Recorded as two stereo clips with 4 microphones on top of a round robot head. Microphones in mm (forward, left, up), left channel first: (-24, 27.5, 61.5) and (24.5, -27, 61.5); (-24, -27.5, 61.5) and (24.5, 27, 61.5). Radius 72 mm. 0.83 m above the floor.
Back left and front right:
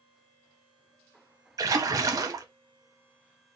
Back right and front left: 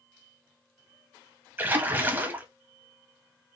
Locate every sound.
1.6 s a splash: 10° right, 0.9 m